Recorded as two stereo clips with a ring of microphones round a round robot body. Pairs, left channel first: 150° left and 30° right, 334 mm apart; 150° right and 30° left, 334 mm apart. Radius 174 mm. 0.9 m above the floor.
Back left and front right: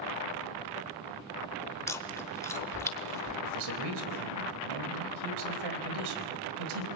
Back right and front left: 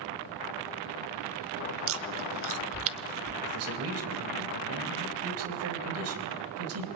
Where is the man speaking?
20° right, 4 m.